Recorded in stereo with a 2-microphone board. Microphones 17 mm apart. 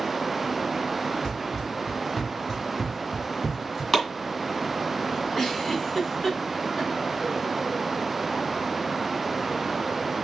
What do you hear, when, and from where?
1.2 s running footsteps: 45° left (ahead or behind), 3 m; by 3.8 s 15° right (ahead or behind), 1.5 m
3.9 s chopping: 10° left (ahead or behind), 2.5 m
5.3 s a giggle: 30° left (ahead or behind), 2.5 m